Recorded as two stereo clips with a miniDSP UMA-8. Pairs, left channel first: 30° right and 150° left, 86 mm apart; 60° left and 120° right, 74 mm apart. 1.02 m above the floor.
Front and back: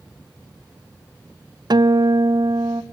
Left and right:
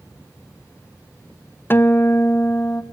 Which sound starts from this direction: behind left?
A guitar, at 1.7 s.